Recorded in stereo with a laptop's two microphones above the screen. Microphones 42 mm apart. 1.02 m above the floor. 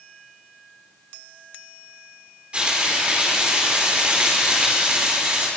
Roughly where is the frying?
Right.